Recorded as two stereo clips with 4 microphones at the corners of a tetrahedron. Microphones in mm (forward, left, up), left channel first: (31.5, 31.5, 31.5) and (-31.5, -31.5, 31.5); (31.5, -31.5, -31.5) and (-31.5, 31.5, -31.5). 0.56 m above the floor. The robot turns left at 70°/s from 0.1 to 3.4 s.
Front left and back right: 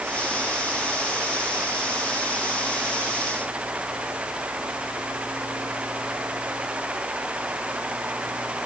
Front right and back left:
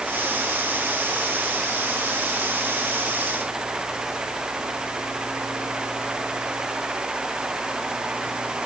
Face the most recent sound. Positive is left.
No sound to turn to.